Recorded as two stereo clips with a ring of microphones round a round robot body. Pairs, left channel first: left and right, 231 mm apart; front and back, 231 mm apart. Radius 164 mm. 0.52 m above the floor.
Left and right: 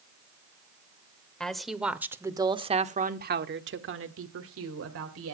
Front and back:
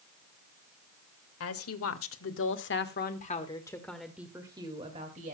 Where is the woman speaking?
5° left, 2.0 m; by 5.3 s 115° right, 2 m.